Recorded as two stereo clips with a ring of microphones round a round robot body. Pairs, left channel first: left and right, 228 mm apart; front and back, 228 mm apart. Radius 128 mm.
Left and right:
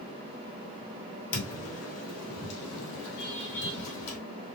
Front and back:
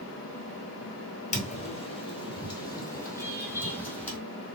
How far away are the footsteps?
About 1.7 m.